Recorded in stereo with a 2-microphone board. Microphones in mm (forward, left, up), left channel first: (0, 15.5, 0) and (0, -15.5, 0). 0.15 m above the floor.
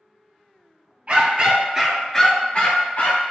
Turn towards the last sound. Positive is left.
turn(degrees=55)  # may be behind; listen again after turning